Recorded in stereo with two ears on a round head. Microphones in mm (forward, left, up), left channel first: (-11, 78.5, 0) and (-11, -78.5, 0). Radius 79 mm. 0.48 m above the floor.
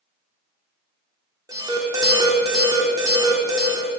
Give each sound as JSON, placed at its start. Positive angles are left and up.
{"t": 1.5, "sound": "an alarm", "side_deg": -20, "distance_m": 0.9}